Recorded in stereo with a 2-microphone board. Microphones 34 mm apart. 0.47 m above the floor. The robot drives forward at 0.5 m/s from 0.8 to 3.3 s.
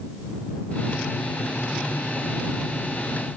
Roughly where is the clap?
I don't hear a clap.